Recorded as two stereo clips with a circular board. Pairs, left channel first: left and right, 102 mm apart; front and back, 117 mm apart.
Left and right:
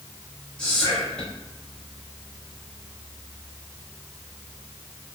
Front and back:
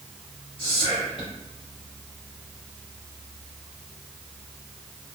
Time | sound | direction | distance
0.6 | whispering | 10° left | 1.4 m